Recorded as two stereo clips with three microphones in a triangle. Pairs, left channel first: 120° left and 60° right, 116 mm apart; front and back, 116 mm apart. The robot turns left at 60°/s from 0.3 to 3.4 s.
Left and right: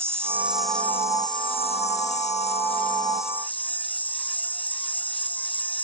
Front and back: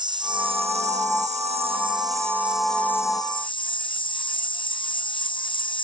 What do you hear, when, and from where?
0.0 s an insect: 130° right; by 5.8 s 45° left